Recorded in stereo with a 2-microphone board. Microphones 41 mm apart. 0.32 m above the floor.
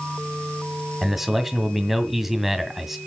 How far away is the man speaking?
About 1.8 m.